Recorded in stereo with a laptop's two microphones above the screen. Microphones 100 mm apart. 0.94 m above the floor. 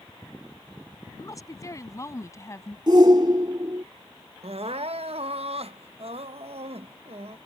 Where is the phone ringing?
I don't hear a phone ringing.